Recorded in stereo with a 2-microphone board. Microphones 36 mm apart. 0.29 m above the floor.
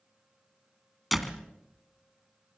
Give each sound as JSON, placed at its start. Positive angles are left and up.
{"t": 1.1, "sound": "a door slam", "side_deg": 0, "distance_m": 1.8}